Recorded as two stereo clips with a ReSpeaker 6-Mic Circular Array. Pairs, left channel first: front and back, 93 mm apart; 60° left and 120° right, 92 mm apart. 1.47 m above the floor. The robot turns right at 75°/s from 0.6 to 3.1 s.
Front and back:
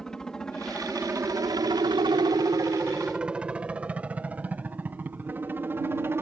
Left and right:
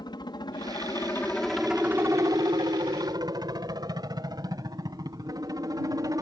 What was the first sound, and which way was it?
A helicopter, 85° left.